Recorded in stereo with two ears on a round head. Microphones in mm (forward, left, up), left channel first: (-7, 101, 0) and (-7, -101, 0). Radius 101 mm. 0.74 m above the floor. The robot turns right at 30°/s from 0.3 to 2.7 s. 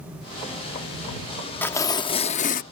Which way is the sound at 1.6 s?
10° left.